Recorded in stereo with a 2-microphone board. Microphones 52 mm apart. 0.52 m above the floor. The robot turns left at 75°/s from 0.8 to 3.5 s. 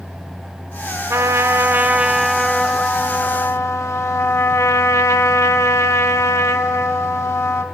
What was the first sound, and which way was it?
A trumpet, 85° right.